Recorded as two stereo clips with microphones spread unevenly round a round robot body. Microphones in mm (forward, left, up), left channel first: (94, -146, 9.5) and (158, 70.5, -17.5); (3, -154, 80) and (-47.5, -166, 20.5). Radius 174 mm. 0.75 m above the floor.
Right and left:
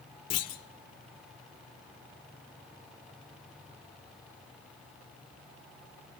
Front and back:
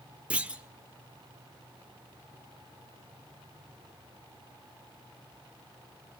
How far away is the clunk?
About 1.5 m.